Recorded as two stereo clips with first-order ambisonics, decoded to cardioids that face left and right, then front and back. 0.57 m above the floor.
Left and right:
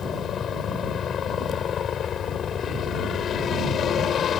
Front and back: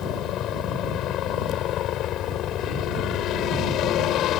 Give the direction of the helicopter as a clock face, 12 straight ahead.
11 o'clock.